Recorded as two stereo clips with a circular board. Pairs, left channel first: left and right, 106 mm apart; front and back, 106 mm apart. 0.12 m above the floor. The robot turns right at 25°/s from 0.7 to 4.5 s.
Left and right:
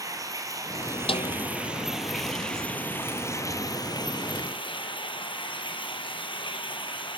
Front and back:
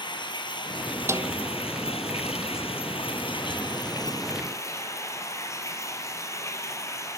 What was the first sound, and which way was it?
Running water, 35° right.